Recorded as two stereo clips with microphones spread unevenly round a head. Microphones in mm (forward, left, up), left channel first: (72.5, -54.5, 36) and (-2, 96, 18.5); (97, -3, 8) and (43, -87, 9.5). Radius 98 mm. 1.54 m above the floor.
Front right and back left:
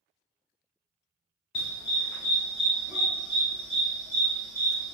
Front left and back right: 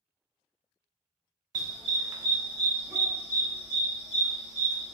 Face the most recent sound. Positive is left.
turn(degrees=140)